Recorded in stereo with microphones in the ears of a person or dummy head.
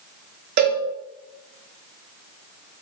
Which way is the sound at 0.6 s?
50° right (ahead or behind).